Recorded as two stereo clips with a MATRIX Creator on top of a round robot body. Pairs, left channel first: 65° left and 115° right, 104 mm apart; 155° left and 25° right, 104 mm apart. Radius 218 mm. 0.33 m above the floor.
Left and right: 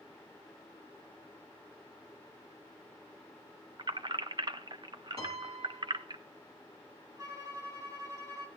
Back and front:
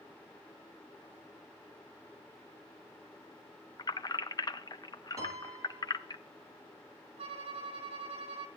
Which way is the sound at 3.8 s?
155° right.